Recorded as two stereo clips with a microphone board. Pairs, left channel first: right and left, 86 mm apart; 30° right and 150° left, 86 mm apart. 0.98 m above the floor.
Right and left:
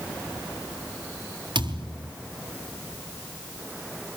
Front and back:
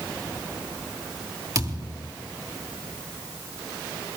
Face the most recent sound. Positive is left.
turn(degrees=110)